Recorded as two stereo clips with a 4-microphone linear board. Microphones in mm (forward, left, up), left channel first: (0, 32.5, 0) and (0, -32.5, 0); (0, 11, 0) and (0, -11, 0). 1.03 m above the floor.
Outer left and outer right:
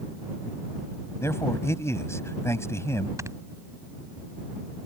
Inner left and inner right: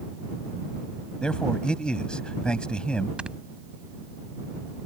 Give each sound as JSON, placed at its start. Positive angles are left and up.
{"t": 1.2, "sound": "a man speaking", "side_deg": 45}
{"t": 3.2, "sound": "snoring", "side_deg": -50}